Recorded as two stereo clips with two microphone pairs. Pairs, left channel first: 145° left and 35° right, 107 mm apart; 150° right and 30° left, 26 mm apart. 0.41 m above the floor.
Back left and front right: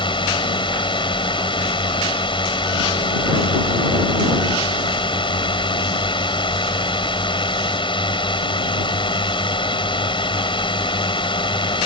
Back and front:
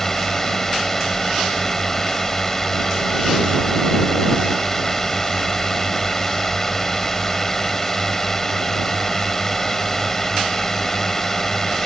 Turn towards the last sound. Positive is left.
turn(degrees=140)